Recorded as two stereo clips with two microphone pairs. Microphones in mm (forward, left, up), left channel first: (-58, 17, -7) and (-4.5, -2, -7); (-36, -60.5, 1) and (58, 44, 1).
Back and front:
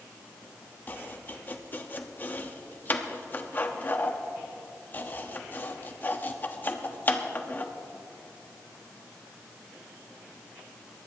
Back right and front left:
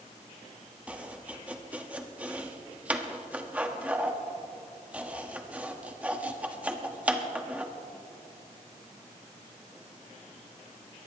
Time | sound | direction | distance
0.9 | chopping | 125° left | 1.0 m